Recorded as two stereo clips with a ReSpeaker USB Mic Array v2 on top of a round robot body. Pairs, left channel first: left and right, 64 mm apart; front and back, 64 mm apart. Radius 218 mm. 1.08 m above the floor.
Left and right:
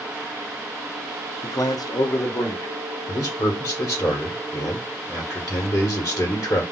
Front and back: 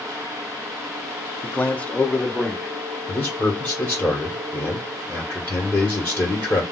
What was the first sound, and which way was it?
A man speaking, 55° left.